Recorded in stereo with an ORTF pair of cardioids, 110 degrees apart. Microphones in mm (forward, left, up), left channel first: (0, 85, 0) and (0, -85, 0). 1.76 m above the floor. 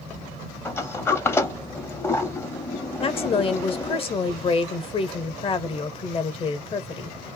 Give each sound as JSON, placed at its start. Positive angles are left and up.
{"t": 0.7, "sound": "a sliding door", "azimuth_deg": 15, "distance_m": 0.7}
{"t": 3.0, "sound": "a woman speaking", "azimuth_deg": 35, "distance_m": 0.9}